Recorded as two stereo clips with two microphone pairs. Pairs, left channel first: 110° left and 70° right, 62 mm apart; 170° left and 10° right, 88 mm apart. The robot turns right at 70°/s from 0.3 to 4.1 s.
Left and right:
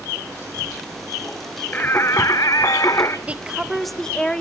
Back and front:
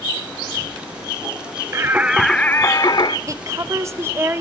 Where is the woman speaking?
20° right, 1.0 m; by 4.4 s 35° left, 1.0 m.